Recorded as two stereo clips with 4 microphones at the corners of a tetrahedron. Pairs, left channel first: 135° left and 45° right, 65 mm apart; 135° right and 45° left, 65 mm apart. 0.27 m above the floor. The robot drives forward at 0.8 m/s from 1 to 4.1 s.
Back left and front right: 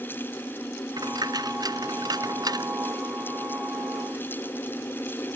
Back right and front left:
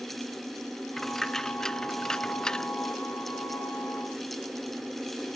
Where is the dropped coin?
50° right; by 2.7 s 55° right.